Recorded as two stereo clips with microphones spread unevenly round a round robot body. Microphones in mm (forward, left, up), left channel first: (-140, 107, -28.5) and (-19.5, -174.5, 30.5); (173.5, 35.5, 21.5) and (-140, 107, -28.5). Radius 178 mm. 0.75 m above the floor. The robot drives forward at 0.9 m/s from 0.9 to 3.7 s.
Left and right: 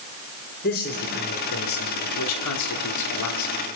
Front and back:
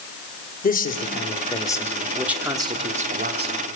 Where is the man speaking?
55° left, 2.5 m; by 3.6 s 115° left, 2.5 m.